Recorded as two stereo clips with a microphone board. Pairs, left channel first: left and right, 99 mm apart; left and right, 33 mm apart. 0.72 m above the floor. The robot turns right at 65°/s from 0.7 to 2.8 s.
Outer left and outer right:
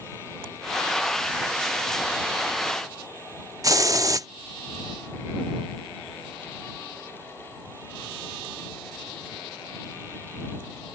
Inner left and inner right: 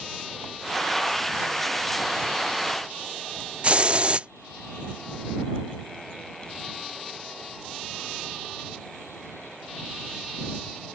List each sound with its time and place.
3.6 s a hiss: 35° right (ahead or behind)